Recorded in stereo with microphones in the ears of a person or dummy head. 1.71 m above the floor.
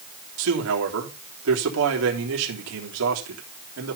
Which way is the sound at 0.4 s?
80° right.